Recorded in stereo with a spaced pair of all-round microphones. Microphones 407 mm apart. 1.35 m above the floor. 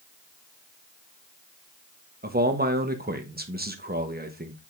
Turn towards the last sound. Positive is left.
turn(degrees=-25)  # may be behind; listen again after turning